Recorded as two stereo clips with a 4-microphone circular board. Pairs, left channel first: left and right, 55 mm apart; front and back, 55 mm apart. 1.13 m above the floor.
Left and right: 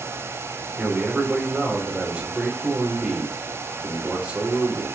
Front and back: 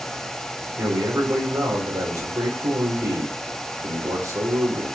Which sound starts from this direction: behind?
A man speaking, at 0.8 s.